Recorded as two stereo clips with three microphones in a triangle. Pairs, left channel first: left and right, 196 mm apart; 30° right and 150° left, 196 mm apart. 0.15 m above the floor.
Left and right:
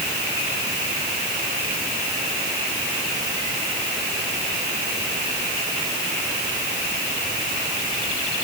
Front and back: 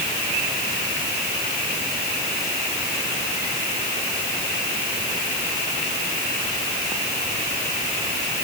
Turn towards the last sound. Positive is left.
No sound to turn to.